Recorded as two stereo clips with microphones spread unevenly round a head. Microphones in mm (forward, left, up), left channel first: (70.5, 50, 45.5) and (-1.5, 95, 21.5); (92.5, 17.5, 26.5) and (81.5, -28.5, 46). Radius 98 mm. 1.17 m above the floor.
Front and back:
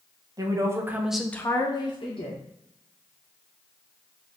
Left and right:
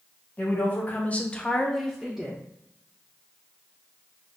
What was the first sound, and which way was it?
A woman speaking, 115° left.